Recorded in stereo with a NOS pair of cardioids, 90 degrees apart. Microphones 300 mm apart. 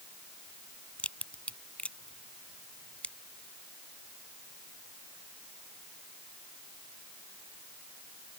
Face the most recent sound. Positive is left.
turn(degrees=5)